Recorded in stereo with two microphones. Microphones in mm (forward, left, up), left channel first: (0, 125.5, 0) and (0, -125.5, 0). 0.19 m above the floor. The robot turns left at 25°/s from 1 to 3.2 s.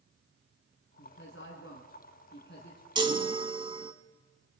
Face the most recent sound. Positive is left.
turn(degrees=-20)  # may be behind; listen again after turning